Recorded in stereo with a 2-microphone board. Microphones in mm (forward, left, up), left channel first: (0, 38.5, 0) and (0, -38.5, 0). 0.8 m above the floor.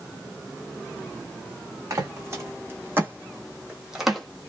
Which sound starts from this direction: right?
Footsteps, at 1.9 s.